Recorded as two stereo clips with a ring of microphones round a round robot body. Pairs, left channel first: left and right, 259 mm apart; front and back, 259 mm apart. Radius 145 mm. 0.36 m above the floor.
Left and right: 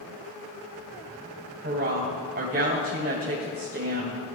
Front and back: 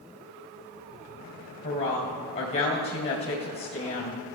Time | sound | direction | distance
1.6 | a woman speaking | 40° right | 2.5 m